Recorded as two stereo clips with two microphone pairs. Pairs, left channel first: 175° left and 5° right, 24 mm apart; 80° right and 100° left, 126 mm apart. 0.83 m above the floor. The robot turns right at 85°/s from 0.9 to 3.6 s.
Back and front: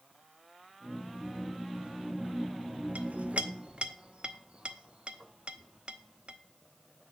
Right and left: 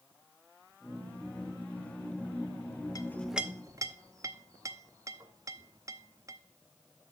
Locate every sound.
3.0 s a clink: 20° right, 0.7 m; by 6.4 s 35° left, 0.7 m